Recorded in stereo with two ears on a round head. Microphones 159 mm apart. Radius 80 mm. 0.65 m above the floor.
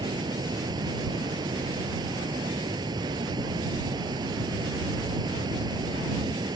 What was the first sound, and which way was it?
Running water, 25° right (ahead or behind).